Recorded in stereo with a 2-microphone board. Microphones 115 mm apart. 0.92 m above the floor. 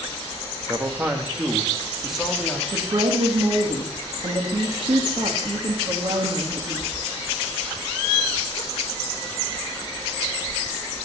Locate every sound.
0.7 s a man speaking: 20° right (ahead or behind), 1.3 m; by 2.6 s 5° left (ahead or behind), 2 m
2.7 s a woman speaking: 50° right (ahead or behind), 1.7 m